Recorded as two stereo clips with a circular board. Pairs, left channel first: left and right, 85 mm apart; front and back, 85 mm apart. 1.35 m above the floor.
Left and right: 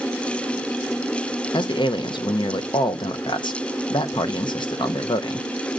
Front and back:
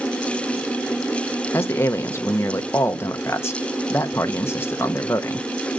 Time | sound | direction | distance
1.5 | a man speaking | 60° left | 0.7 m